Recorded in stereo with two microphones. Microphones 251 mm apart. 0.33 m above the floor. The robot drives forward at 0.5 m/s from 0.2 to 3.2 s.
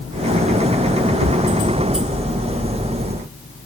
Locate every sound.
1.2 s a thud: 70° right (ahead or behind)